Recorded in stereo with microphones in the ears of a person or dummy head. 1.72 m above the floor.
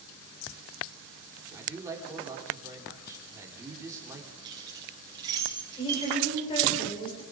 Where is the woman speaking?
25° left (ahead or behind), 8 m.